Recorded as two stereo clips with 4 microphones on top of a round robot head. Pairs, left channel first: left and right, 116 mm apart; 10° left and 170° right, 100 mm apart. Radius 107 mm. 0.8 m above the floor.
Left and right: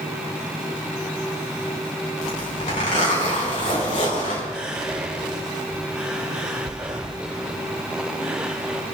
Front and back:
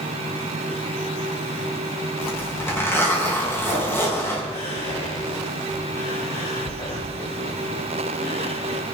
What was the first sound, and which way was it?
A zipper, 75° left.